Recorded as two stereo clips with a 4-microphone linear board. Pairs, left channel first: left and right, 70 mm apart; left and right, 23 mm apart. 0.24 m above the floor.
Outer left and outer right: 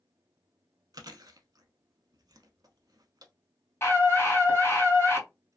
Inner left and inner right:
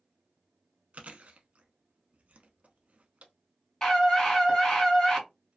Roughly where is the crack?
No crack in this recording.